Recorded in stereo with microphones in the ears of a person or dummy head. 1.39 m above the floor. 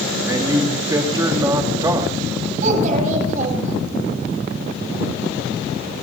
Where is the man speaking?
20° right (ahead or behind), 2 m.